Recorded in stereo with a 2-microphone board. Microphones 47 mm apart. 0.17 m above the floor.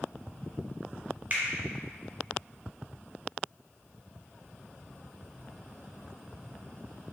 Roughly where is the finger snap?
Right.